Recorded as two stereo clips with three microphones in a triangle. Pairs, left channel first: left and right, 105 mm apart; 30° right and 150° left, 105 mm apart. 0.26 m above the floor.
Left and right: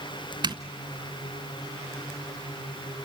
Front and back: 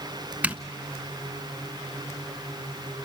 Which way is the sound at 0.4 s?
130° right.